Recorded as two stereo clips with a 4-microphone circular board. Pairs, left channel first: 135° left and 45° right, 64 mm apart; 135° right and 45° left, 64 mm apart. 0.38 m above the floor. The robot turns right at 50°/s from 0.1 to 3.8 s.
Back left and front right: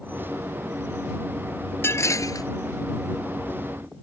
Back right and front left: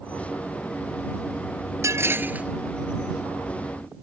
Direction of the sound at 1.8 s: 85° left.